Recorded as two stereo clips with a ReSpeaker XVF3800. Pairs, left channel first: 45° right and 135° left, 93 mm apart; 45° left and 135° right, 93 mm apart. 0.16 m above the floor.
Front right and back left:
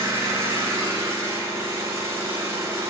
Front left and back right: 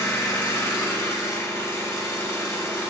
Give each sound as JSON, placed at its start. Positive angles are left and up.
{"t": 0.0, "sound": "an engine running", "azimuth_deg": 95, "distance_m": 1.5}